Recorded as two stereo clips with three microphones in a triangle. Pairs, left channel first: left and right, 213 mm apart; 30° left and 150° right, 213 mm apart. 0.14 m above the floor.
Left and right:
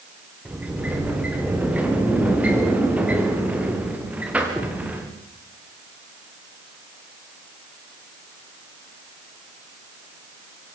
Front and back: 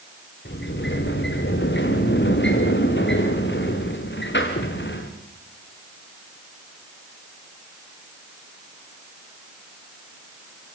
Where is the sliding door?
5° right, 5 m.